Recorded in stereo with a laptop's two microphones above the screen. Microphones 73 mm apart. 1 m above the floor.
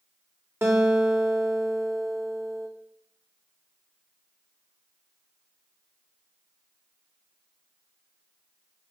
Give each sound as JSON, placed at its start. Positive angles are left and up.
{"t": 0.6, "sound": "a guitar", "side_deg": -30, "distance_m": 1.7}